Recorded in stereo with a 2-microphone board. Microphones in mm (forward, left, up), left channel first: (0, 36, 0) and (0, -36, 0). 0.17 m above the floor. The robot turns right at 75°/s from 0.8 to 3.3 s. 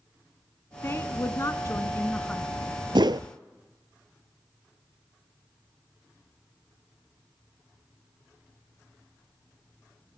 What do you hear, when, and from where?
0.8 s a woman speaking: 55° left, 1.3 m; by 2.5 s straight behind, 1.3 m
3.0 s a whoosh: 80° right, 0.6 m; by 3.3 s 60° right (ahead or behind), 0.6 m